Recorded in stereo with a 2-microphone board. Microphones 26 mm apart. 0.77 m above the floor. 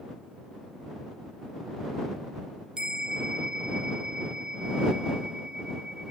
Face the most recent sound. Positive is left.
turn(degrees=-30)  # may be behind; listen again after turning